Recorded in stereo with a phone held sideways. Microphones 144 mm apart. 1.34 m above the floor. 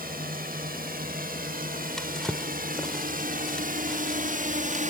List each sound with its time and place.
0.0 s a drone: 80° right; by 4.9 s 60° right (ahead or behind)
2.0 s a drawer: 5° left (ahead or behind)